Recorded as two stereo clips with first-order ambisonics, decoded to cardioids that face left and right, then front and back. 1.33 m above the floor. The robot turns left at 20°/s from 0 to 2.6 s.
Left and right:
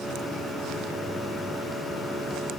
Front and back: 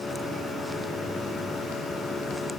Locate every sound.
Only background noise.